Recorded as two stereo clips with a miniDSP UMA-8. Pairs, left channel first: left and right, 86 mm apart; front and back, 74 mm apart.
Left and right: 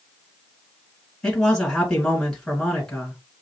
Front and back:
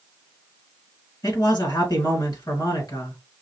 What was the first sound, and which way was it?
A man speaking, 5° left.